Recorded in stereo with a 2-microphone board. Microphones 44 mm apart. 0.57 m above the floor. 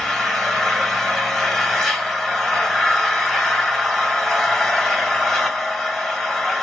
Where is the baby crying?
No baby crying in this recording.